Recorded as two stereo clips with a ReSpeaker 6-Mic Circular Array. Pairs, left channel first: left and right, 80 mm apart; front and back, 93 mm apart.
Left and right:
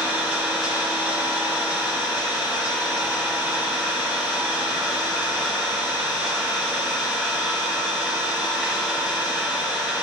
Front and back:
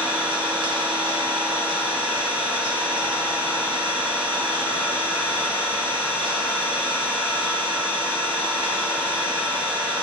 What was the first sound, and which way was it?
An engine running, 165° right.